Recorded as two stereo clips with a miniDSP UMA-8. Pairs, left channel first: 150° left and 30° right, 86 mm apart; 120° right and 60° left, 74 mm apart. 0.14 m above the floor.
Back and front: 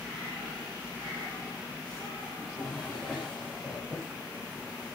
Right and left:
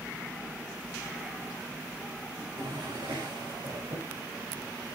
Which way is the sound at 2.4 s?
70° left.